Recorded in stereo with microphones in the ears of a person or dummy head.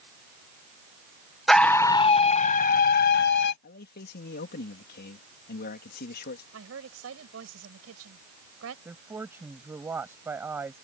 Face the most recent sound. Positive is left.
turn(degrees=-15)  # may be behind; listen again after turning